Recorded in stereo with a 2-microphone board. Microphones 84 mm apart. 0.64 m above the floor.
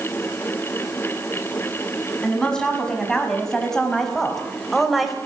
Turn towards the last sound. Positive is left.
turn(degrees=0)  # may be behind; listen again after turning